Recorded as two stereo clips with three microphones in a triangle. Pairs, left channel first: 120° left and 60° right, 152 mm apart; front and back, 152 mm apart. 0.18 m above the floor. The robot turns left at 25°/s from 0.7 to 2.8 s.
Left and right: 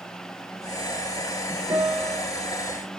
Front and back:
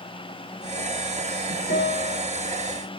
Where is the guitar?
10° left, 9.5 m; by 2.2 s straight ahead, 9.5 m.